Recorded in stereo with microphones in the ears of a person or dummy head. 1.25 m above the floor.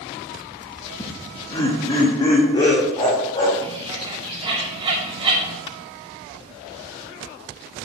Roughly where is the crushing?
Left.